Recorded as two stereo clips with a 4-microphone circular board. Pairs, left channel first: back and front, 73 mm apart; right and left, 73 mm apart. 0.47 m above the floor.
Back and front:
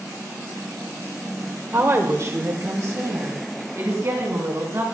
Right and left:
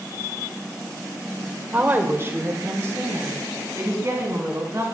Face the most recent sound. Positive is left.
turn(degrees=45)